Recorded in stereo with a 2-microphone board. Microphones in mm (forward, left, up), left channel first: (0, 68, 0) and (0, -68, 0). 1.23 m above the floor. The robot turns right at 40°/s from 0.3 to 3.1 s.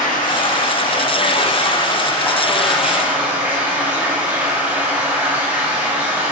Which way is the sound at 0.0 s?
80° left.